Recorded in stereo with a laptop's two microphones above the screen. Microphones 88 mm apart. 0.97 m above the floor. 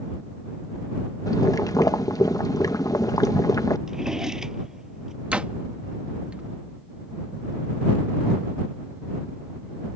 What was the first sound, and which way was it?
Boiling, 45° left (ahead or behind).